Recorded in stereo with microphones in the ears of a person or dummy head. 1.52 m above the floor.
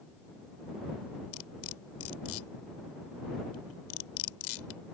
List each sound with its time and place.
1.3 s cutlery clinking: 80° left